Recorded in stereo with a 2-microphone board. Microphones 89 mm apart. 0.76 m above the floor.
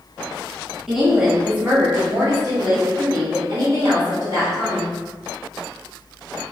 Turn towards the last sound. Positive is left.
turn(degrees=-50)  # may be behind; listen again after turning